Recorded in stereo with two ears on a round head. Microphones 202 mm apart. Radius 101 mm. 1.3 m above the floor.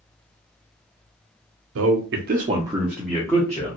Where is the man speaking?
65° right (ahead or behind), 0.7 m; by 3.8 s 20° left (ahead or behind), 1.2 m.